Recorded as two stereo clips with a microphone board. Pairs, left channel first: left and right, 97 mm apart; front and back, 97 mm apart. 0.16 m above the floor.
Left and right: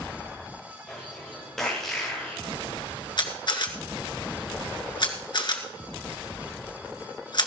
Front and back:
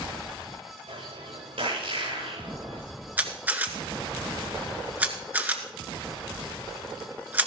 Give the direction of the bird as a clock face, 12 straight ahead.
6 o'clock.